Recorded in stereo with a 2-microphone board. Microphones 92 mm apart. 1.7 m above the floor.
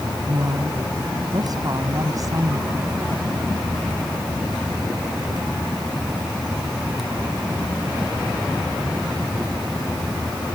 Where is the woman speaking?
50° right (ahead or behind); by 3.0 s 40° right (ahead or behind).